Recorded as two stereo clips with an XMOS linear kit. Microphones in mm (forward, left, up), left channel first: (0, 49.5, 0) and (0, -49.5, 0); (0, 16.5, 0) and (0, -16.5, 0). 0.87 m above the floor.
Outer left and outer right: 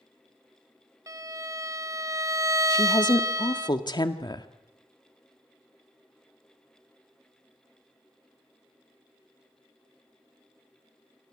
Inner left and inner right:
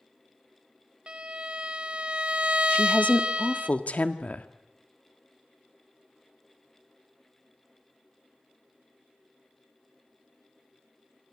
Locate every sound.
1.1 s a violin: 35° right (ahead or behind), 0.9 m
2.7 s a woman speaking: 50° left (ahead or behind), 1.7 m